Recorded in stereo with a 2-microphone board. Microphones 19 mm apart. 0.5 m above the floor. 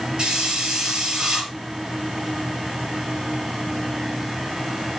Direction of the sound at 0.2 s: 50° right (ahead or behind).